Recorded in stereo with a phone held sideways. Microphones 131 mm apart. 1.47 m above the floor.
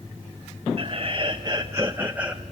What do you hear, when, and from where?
0.8 s laughter: 45° right (ahead or behind), 1.3 m; by 2.4 s 5° right (ahead or behind), 1.1 m